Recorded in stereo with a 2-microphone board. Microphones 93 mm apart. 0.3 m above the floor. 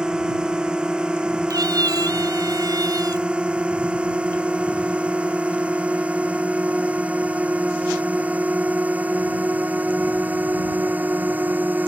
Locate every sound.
0.0 s a drone: 10° right (ahead or behind); by 11.9 s 20° right (ahead or behind)
1.5 s a cat meowing: 45° right (ahead or behind)